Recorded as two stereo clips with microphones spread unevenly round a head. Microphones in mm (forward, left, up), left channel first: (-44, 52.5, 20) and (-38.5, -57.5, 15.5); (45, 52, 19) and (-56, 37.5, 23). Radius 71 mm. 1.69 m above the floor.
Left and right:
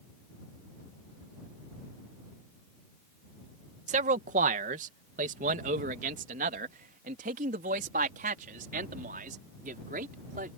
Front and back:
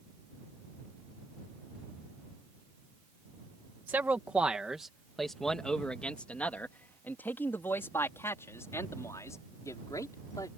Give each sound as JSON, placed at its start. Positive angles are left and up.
{"t": 3.9, "sound": "a man speaking", "azimuth_deg": -95}